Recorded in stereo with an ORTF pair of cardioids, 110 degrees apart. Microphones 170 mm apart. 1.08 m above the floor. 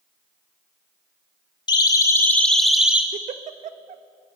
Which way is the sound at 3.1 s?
50° right.